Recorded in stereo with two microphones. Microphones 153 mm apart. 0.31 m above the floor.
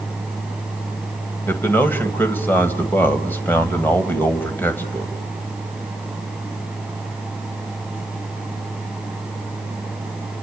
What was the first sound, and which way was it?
A man speaking, 15° left (ahead or behind).